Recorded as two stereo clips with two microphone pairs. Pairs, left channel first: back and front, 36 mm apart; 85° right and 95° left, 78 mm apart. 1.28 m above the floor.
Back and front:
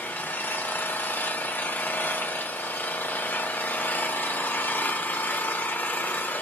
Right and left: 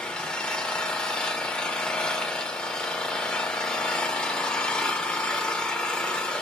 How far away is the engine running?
About 0.9 m.